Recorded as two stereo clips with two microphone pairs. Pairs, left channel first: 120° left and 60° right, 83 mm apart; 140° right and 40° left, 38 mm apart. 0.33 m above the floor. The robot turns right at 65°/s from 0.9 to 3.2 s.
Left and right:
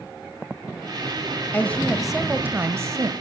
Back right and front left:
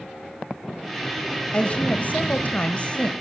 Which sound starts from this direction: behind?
A woman speaking, at 1.5 s.